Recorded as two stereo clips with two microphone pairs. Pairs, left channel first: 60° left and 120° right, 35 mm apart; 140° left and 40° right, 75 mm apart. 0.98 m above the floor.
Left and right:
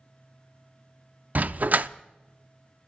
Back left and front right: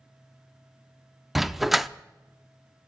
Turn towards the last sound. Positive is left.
turn(degrees=-130)